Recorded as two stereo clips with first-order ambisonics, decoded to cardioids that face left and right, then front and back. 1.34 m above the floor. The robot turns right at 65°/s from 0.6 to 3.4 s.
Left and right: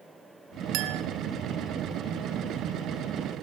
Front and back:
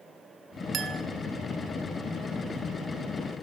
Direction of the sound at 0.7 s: 120° right.